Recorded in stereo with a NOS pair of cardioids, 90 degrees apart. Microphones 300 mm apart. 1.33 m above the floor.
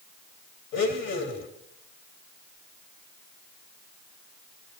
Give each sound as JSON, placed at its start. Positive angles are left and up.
{"t": 0.7, "sound": "a blender", "azimuth_deg": 60, "distance_m": 3.0}